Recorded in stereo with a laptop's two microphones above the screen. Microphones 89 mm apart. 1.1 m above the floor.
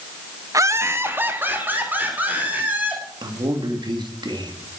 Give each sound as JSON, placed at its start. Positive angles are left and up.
{"t": 0.5, "sound": "laughter", "side_deg": -40, "distance_m": 0.7}
{"t": 3.2, "sound": "a man speaking", "side_deg": -60, "distance_m": 2.0}